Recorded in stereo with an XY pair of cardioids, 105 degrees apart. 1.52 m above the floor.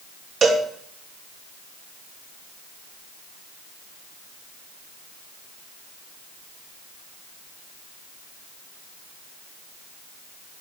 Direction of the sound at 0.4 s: 50° right.